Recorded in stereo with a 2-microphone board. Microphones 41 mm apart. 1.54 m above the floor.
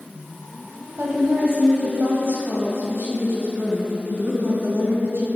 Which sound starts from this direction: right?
A woman speaking, at 1.0 s.